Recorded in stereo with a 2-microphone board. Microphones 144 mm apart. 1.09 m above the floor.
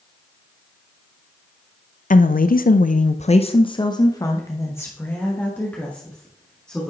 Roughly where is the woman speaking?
Left.